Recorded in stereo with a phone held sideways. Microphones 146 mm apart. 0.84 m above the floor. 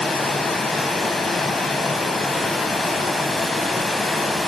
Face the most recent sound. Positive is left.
turn(degrees=0)  # may be behind; listen again after turning